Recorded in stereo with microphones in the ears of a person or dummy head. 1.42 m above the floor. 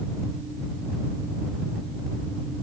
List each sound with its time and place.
Only background noise.